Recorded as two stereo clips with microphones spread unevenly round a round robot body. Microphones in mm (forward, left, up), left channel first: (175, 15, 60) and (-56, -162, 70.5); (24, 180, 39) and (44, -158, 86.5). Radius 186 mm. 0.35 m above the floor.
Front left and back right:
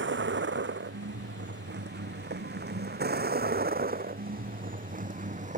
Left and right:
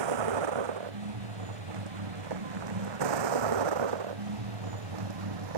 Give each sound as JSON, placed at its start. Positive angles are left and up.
{"t": 0.0, "sound": "a vehicle", "azimuth_deg": -90}